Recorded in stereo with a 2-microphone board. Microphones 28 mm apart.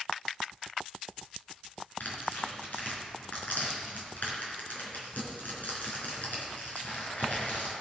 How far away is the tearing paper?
About 3.5 m.